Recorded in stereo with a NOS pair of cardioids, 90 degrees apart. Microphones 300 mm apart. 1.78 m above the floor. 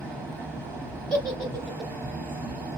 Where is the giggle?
Straight ahead, 0.8 m.